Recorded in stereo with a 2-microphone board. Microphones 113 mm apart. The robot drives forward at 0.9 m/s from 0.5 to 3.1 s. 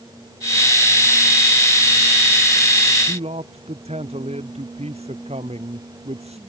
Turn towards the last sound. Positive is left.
turn(degrees=-70)  # may be behind; listen again after turning